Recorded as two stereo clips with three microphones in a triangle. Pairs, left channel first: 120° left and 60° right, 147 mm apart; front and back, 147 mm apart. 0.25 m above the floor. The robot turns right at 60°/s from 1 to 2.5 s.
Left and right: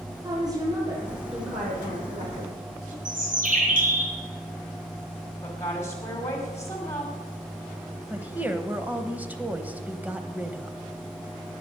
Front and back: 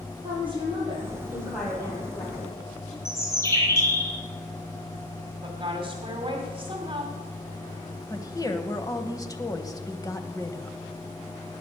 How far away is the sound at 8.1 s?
About 1.1 m.